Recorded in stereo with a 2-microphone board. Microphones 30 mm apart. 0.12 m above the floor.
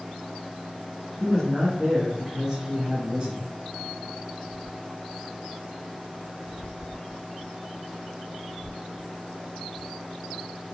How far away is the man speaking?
About 1.5 m.